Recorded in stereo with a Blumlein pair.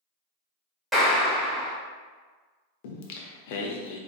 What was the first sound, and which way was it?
A clap, 5° right.